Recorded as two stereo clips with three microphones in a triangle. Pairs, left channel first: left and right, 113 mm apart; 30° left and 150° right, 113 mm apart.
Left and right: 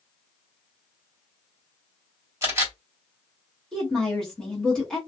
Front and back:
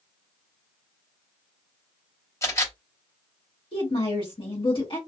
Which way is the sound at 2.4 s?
30° right.